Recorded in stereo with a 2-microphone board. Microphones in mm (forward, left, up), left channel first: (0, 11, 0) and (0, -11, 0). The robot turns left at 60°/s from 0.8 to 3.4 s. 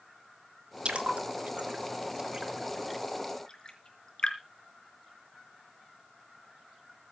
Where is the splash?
55° right (ahead or behind), 3.5 m; by 4.4 s 30° left (ahead or behind), 3.5 m.